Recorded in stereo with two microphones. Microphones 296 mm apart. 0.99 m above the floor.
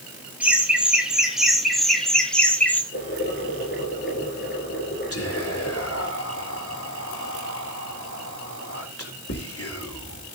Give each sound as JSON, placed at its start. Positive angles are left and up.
{"t": 0.4, "sound": "laughter", "side_deg": -5, "distance_m": 4.5}
{"t": 2.9, "sound": "boiling", "side_deg": 35, "distance_m": 8.5}
{"t": 5.1, "sound": "whispering", "side_deg": 50, "distance_m": 4.0}